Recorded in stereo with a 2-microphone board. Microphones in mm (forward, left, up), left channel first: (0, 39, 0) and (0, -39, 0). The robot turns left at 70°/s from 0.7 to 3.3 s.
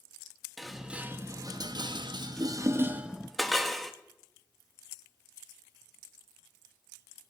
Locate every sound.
0.6 s dishes clattering: centre (ahead or behind), 1.0 m